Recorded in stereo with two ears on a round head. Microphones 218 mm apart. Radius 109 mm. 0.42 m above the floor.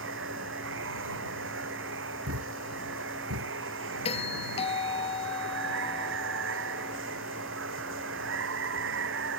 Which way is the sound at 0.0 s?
55° right (ahead or behind).